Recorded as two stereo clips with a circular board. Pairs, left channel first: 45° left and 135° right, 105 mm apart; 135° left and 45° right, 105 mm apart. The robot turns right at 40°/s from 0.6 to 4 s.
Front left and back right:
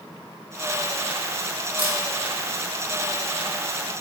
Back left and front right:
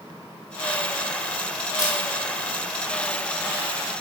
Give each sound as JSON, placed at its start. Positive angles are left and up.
{"t": 1.8, "sound": "a camera shutter", "azimuth_deg": -170, "distance_m": 2.5}